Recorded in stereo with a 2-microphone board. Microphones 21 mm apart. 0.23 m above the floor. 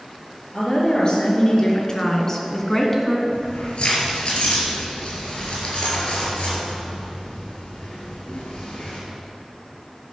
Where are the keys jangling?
55° left (ahead or behind), 3.5 m.